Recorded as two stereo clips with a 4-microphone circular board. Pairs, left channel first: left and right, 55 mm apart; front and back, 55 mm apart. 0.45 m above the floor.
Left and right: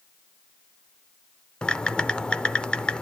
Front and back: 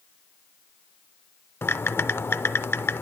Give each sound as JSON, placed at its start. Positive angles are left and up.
{"t": 1.6, "sound": "typing on a keyboard", "azimuth_deg": 25, "distance_m": 0.5}